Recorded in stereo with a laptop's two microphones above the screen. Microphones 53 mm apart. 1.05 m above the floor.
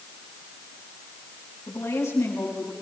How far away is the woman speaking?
About 9 m.